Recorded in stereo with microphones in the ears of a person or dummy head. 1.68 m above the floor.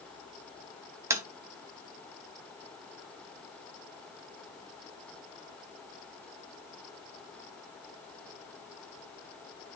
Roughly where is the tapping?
Centre.